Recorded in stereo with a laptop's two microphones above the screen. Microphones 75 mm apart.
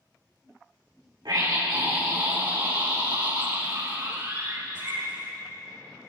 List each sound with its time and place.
1.2 s a scream: 70° right (ahead or behind), 4.5 m; by 5.4 s 80° right, 6.5 m